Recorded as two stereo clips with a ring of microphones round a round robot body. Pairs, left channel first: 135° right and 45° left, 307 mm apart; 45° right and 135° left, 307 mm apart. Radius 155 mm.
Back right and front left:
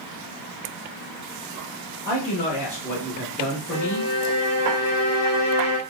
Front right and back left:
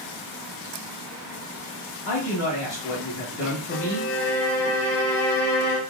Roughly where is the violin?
Right.